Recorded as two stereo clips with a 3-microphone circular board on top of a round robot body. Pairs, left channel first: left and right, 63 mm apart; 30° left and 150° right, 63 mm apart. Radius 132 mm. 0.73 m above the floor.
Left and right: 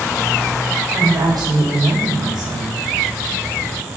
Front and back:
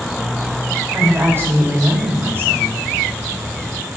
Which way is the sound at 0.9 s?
95° right.